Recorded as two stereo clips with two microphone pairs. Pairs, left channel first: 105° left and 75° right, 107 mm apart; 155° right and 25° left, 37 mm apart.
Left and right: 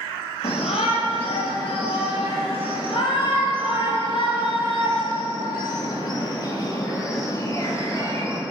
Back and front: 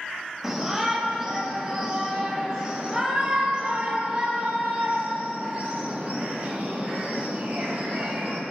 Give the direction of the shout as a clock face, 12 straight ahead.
9 o'clock.